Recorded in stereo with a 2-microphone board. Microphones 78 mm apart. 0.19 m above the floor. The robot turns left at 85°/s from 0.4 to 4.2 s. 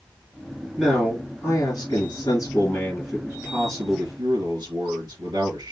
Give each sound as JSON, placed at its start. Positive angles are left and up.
{"t": 0.8, "sound": "a man speaking", "azimuth_deg": -160, "distance_m": 3.0}